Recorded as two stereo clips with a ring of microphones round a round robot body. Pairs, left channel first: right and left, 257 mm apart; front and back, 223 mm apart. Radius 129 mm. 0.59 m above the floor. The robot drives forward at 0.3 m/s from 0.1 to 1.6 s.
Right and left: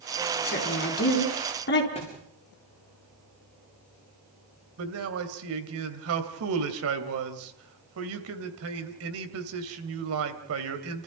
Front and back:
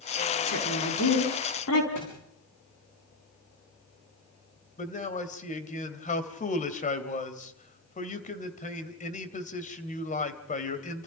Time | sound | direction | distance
0.5 | a woman speaking | 35° right | 4.5 m
1.9 | a thud | 20° right | 7 m
4.8 | a man speaking | 55° left | 2.5 m